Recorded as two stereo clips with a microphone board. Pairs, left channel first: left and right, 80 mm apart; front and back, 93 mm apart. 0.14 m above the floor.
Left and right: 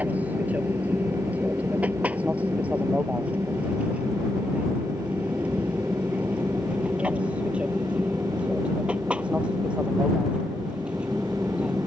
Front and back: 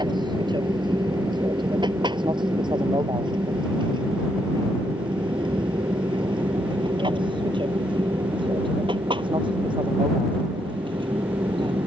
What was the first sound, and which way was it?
An aircraft, 160° right.